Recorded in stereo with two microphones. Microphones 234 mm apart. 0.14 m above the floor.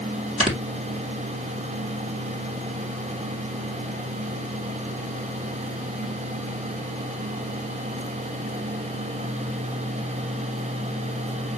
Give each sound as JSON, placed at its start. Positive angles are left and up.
{"t": 0.4, "sound": "snoring", "side_deg": -25, "distance_m": 2.0}